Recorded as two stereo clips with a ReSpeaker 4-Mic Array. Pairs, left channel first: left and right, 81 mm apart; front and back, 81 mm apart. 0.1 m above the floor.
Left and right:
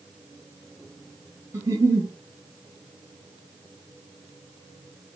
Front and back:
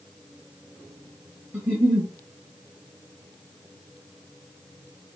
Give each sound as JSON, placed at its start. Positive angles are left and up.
{"t": 1.5, "sound": "a giggle", "azimuth_deg": -110, "distance_m": 1.1}